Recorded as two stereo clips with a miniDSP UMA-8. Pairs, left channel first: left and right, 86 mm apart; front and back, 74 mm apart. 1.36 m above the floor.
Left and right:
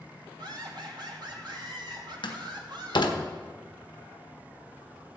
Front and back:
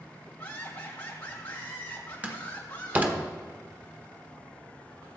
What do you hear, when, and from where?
0.4 s laughter: 60° right, 3 m
2.2 s a door slam: 115° left, 1.0 m